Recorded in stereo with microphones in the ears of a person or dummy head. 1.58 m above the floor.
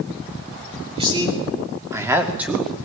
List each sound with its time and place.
0.9 s a man speaking: 25° right (ahead or behind), 4 m; by 2.8 s 5° left (ahead or behind), 2.5 m